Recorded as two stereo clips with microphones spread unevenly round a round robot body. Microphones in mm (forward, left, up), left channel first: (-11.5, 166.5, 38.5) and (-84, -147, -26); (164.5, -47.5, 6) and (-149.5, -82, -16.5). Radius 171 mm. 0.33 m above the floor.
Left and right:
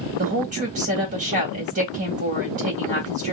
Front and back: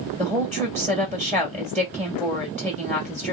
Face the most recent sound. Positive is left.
turn(degrees=-80)